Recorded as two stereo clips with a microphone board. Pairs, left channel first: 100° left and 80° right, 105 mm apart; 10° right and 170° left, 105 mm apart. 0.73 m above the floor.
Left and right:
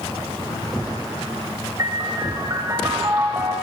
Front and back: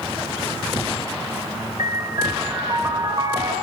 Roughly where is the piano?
Behind right.